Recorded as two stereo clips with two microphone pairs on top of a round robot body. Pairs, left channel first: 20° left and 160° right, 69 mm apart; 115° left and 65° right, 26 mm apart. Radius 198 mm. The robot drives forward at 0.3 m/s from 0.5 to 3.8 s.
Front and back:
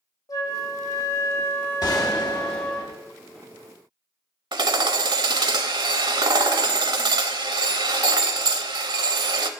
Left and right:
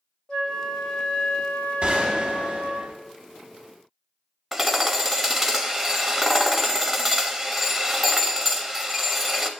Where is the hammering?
155° right, 0.6 m.